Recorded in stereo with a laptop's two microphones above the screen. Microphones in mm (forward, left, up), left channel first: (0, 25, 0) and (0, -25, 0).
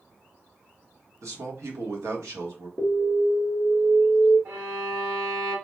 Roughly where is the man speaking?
Right.